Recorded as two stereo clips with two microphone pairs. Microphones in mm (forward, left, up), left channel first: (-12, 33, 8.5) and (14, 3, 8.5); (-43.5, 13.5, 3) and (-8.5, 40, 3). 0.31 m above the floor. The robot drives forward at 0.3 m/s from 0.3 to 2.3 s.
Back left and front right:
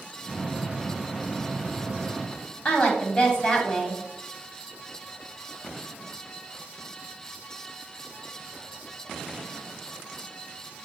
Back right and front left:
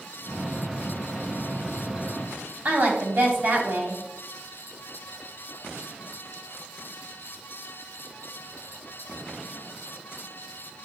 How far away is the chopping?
I don't hear chopping.